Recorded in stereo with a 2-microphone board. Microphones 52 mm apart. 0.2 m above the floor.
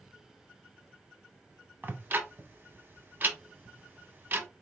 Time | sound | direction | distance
1.8 | ticking | 35° right (ahead or behind) | 0.9 m